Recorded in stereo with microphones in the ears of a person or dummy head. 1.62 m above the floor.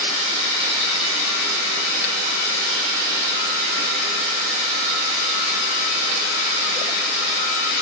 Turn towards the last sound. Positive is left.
No sound to turn to.